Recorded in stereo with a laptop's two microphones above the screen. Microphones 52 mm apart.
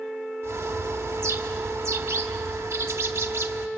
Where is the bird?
50° right (ahead or behind), 1.1 m.